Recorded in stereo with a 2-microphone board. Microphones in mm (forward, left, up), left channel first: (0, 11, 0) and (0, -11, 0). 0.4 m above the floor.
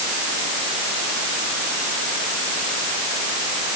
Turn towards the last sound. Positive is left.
No sound to turn to.